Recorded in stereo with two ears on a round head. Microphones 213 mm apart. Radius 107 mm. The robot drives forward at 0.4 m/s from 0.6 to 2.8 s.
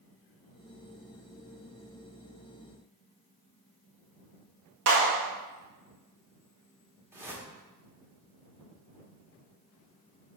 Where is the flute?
I don't hear a flute.